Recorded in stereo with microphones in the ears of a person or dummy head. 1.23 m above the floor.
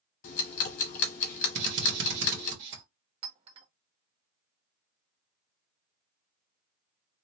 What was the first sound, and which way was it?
Ticking, 45° left (ahead or behind).